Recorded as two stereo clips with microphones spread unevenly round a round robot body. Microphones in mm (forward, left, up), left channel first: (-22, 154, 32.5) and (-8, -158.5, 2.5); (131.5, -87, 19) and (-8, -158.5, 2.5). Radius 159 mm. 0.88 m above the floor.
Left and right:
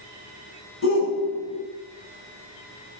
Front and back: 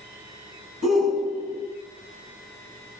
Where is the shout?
145° left, 6 m.